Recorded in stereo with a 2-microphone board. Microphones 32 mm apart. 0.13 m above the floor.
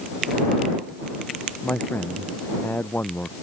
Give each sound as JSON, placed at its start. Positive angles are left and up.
{"t": 1.6, "sound": "a man speaking", "side_deg": 80}